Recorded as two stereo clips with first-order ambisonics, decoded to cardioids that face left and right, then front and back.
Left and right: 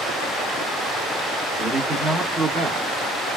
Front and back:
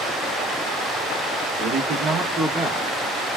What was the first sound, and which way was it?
A man speaking, 160° right.